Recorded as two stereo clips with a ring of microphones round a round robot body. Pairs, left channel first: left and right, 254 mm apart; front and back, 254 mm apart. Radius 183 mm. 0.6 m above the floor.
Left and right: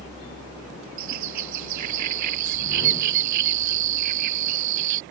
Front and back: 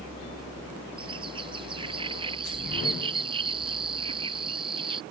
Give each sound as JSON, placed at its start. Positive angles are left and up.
{"t": 1.0, "sound": "a bird", "azimuth_deg": -105}